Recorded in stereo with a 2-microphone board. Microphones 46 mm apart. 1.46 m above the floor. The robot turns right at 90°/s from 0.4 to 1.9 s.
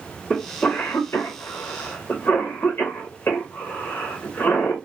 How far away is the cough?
About 0.6 m.